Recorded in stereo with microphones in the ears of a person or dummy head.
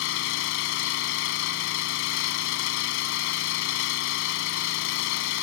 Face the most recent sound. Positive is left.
turn(degrees=70)  # may be behind; listen again after turning